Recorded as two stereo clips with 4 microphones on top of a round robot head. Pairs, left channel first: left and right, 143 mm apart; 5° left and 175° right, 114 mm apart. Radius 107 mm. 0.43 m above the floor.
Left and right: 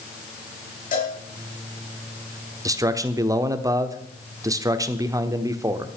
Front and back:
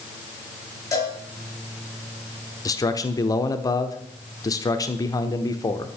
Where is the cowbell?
65° left, 6 m.